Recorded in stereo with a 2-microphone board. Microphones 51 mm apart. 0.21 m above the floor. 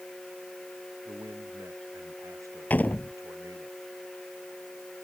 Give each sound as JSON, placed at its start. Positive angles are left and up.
{"t": 1.1, "sound": "a man speaking", "side_deg": -85}
{"t": 2.7, "sound": "a door slam", "side_deg": 30}